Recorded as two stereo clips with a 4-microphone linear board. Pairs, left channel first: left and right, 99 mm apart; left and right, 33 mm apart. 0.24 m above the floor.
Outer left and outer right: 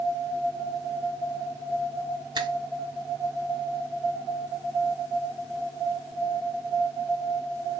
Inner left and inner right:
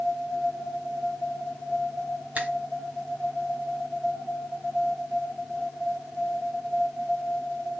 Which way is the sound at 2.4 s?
45° right (ahead or behind).